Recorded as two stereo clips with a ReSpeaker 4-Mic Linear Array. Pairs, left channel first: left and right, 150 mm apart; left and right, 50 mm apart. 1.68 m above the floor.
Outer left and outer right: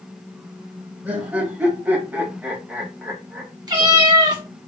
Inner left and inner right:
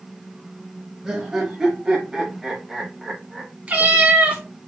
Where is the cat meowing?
30° right (ahead or behind), 1.8 m.